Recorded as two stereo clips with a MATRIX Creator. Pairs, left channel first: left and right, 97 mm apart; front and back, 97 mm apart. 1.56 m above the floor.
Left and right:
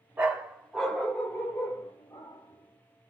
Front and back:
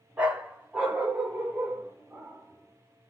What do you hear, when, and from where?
0.2 s a dog barking: 125° right, 1.2 m; by 3.1 s 100° left, 2 m